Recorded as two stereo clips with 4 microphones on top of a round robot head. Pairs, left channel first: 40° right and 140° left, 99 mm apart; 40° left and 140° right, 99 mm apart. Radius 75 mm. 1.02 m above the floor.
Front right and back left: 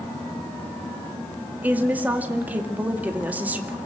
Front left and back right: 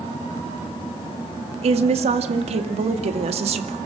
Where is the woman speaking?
145° right, 2 m.